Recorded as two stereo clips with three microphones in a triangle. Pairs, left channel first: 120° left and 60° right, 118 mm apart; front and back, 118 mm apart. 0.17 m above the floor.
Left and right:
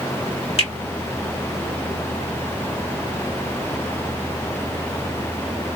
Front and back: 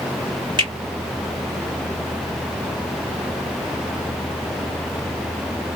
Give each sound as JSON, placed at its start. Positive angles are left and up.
{"t": 0.6, "sound": "a finger snap", "azimuth_deg": 140, "distance_m": 2.0}